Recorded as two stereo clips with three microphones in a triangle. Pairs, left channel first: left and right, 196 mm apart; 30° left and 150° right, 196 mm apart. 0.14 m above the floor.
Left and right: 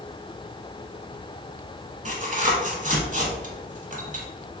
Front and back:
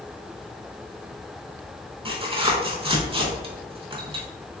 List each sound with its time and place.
2.0 s tearing paper: 105° right, 0.8 m